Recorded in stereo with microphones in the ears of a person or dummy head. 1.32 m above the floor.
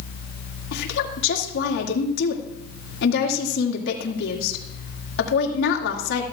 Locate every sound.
0.7 s a woman speaking: 75° left (ahead or behind), 2 m